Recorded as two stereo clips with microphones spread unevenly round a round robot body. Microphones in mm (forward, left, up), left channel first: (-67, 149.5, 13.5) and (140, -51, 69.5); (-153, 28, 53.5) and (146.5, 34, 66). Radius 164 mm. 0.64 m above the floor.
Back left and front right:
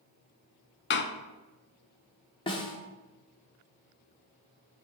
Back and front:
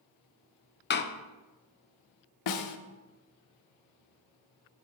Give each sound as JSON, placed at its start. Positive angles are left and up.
{"t": 0.9, "sound": "a door slam", "azimuth_deg": 140, "distance_m": 0.6}
{"t": 2.5, "sound": "a snare drum", "azimuth_deg": -155, "distance_m": 0.7}